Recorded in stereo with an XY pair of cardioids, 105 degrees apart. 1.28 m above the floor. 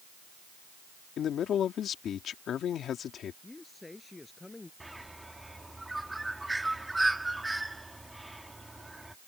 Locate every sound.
1.2 s a man speaking: 60° left
3.4 s a man speaking: 15° left
4.8 s a bird: 10° right